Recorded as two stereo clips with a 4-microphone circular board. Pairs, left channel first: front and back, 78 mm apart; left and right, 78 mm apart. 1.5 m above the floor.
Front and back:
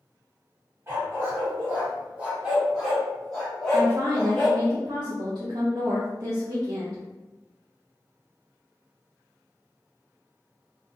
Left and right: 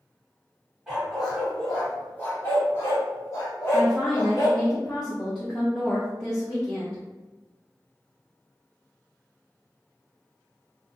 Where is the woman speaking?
170° left, 0.6 m.